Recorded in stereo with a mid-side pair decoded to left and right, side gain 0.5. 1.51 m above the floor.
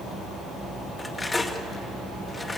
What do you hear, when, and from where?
1.0 s cutlery clinking: 20° left, 2 m